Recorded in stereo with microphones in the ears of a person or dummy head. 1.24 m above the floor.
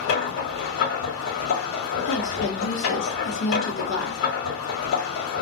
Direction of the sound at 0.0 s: 70° left (ahead or behind).